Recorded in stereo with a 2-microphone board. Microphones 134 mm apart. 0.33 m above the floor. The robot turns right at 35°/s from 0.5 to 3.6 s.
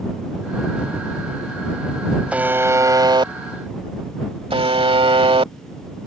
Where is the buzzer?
170° right; by 5.5 s 125° right.